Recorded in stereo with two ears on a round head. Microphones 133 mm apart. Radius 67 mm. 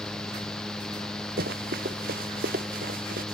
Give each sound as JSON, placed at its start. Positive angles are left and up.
{"t": 1.4, "sound": "running footsteps", "side_deg": -75}